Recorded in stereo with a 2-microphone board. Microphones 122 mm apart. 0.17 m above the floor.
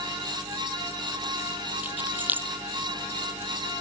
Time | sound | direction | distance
1.8 | keys jangling | 15° right (ahead or behind) | ?